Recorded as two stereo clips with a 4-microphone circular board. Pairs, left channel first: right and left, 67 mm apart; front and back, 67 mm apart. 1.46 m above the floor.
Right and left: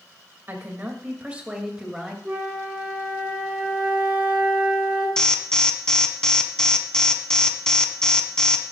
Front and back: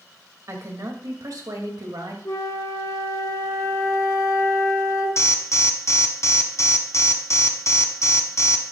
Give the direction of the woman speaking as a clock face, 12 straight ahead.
7 o'clock.